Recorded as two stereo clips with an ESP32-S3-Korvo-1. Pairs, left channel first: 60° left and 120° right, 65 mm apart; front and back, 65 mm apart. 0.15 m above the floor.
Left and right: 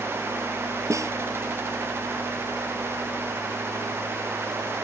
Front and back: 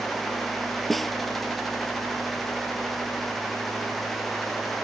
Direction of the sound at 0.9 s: 90° right.